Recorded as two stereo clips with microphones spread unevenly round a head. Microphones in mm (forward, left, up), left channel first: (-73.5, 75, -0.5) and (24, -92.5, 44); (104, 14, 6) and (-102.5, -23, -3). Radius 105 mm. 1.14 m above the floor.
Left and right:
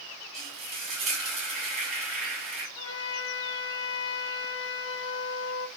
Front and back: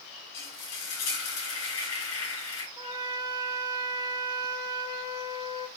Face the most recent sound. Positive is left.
turn(degrees=120)